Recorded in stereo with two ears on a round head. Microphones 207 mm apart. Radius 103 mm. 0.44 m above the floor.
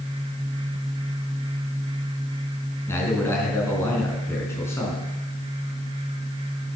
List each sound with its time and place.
2.9 s a man speaking: 10° left (ahead or behind), 4 m